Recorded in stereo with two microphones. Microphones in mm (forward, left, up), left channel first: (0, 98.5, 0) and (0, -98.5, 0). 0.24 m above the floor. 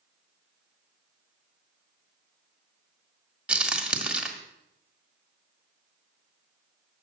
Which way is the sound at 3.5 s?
5° right (ahead or behind).